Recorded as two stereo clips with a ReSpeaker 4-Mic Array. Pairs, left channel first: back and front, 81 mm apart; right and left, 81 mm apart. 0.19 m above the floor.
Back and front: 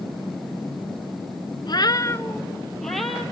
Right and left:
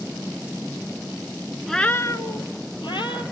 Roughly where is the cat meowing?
Behind.